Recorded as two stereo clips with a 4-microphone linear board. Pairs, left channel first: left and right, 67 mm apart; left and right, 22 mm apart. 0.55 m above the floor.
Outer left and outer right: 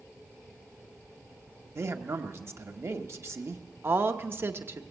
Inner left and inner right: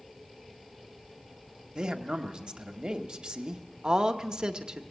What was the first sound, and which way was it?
A man speaking, 40° right (ahead or behind).